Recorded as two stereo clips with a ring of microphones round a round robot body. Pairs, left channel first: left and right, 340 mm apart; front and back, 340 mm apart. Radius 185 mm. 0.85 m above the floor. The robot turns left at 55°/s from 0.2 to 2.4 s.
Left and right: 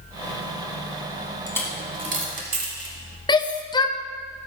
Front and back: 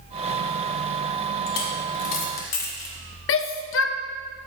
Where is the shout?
20° left, 0.6 m.